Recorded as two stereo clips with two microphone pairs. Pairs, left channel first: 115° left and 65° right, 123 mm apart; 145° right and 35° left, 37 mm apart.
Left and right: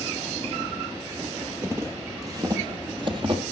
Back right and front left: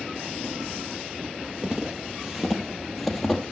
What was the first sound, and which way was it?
Footsteps, 10° right.